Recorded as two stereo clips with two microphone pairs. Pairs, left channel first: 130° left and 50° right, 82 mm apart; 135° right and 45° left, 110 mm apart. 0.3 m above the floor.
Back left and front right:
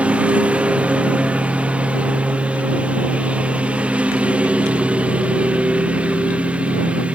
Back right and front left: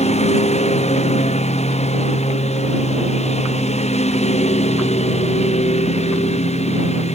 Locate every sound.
0.0 s a lawn mower: 125° right